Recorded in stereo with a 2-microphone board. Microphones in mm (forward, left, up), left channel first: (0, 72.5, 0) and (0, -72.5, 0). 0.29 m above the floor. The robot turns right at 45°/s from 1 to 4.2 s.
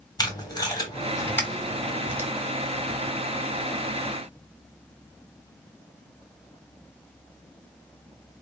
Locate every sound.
0.2 s tape being pulled: 30° left (ahead or behind), 1.7 m; by 2.3 s 20° right (ahead or behind), 1.7 m